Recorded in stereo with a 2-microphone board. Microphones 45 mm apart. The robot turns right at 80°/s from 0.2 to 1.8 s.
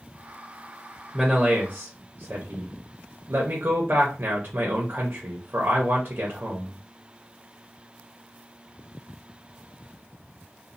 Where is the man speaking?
175° left, 0.6 m; by 6.8 s 130° right, 0.6 m.